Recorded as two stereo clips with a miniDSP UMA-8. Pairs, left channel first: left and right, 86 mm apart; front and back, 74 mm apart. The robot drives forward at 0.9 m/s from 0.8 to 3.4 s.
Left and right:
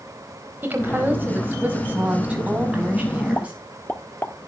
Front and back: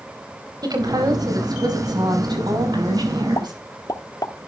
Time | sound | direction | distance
0.6 | a woman speaking | 155° right | 4 m
3.4 | a pop | 25° left | 0.9 m